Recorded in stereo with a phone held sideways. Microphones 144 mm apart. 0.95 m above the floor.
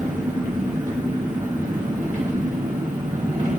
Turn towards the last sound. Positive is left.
turn(degrees=-60)  # may be behind; listen again after turning